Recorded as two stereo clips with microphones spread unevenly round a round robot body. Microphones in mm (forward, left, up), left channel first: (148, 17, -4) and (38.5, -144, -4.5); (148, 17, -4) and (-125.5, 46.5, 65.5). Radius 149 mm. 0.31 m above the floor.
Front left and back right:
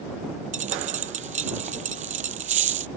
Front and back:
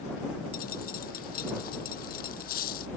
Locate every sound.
0.5 s a dropped coin: 75° right